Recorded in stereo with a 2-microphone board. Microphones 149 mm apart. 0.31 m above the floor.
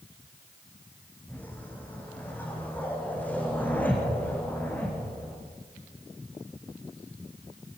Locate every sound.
1.3 s a whoosh: 10° left (ahead or behind), 5.5 m